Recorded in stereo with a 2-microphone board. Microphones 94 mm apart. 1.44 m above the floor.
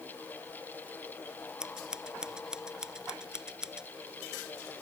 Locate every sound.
1.6 s scissors: 5° right (ahead or behind)